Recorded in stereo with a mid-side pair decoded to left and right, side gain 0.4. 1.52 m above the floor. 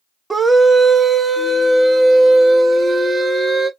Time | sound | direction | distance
0.3 | a scream | 25° right | 0.7 m